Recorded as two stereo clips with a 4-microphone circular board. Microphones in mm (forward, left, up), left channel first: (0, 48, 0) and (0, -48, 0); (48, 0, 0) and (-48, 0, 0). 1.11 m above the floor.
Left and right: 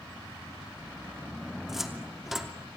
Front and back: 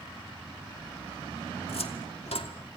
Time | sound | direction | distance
1.7 | a cupboard door | 5° right | 2.5 m